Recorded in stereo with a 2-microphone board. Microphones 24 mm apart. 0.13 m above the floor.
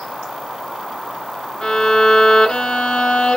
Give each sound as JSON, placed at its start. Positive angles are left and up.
{"t": 1.6, "sound": "a violin", "side_deg": 30, "distance_m": 1.2}